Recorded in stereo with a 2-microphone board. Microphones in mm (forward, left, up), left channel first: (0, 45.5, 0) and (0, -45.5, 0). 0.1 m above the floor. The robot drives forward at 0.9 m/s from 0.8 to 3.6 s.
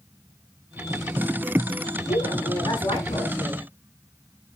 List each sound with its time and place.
2.1 s a woman speaking: 75° left (ahead or behind), 7 m; by 3.6 s 70° left (ahead or behind), 7.5 m